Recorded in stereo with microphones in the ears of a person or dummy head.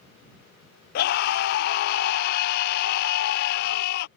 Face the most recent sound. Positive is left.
turn(degrees=55)  # may be behind; listen again after turning